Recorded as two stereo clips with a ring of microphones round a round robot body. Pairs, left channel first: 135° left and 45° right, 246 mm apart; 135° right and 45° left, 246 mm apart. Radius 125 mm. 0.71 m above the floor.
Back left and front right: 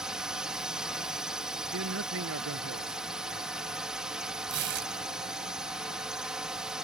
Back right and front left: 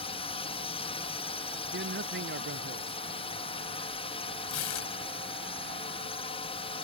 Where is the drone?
130° right.